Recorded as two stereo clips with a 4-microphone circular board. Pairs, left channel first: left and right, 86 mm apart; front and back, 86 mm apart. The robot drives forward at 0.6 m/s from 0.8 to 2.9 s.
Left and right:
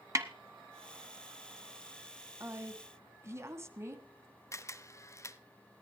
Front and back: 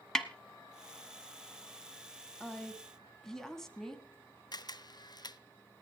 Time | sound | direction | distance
0.1 | a snare drum | 80° right | 1.0 m
2.4 | a woman speaking | 65° right | 1.7 m
4.5 | a camera shutter | 35° left | 0.6 m